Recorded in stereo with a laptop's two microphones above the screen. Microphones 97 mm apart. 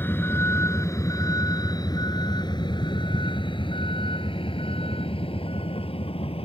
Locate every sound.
0.0 s a vehicle: 20° left (ahead or behind); by 6.5 s 75° left (ahead or behind)